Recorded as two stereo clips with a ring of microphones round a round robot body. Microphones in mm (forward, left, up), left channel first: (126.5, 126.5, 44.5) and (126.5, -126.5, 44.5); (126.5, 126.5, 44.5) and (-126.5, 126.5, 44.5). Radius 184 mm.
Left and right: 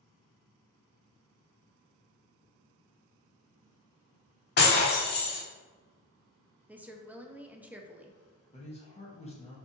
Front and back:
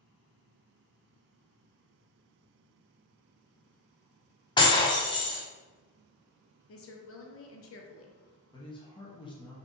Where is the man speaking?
55° left, 1.0 m.